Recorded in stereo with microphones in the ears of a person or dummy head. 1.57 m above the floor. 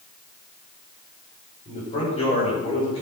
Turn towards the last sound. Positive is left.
turn(degrees=25)  # may be behind; listen again after turning